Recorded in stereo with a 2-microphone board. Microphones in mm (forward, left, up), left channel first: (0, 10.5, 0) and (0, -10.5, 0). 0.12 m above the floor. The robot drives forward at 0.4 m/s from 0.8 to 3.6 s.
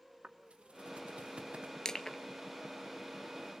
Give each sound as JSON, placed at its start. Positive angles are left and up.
{"t": 0.2, "sound": "footsteps", "side_deg": -90, "distance_m": 2.0}
{"t": 1.9, "sound": "crushing", "side_deg": 35, "distance_m": 0.9}